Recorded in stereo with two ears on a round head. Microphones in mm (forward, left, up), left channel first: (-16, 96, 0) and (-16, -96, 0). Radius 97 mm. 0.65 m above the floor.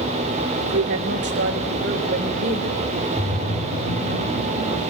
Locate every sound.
0.6 s a woman speaking: 60° right (ahead or behind), 2.0 m; by 3.1 s 35° right (ahead or behind), 3 m
3.2 s a splash: 75° left (ahead or behind), 4 m